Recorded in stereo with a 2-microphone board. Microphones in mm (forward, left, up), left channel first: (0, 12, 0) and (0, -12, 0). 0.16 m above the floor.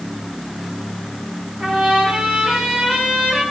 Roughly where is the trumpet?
Right.